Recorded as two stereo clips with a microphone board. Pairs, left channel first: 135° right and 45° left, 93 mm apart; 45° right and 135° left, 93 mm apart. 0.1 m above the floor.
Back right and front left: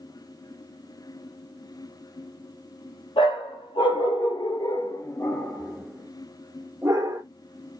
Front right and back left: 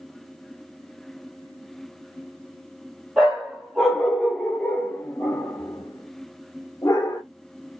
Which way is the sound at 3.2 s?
140° right.